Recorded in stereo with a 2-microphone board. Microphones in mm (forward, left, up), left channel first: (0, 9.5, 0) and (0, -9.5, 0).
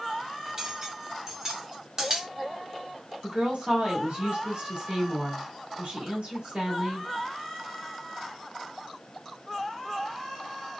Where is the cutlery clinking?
30° right (ahead or behind), 1.3 m.